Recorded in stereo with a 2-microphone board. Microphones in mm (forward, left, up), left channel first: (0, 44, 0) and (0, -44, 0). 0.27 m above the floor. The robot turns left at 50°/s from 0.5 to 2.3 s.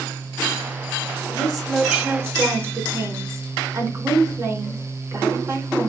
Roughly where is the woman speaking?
Ahead.